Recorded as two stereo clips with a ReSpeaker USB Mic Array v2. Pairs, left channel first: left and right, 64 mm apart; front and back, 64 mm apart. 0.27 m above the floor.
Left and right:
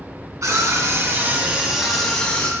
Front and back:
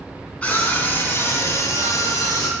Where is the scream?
65° right, 2.5 m; by 2.5 s 20° left, 2 m.